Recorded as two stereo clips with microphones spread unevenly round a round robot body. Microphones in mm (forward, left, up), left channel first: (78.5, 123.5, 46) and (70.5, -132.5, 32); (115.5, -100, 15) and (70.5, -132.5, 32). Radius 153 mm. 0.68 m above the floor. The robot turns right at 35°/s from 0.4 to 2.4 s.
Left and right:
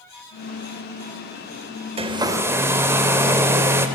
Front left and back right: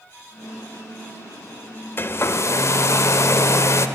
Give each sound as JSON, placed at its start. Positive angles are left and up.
{"t": 2.0, "sound": "a hair dryer", "azimuth_deg": -25, "distance_m": 0.5}